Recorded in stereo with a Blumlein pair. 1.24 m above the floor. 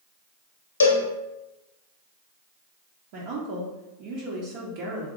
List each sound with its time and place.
0.8 s a cowbell: 70° left, 0.7 m
3.1 s a woman speaking: 45° right, 0.8 m